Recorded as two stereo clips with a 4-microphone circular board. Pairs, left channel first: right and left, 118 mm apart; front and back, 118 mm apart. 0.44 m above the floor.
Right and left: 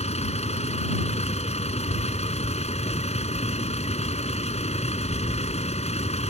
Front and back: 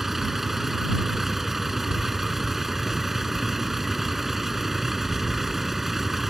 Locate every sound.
0.0 s a vehicle: 90° right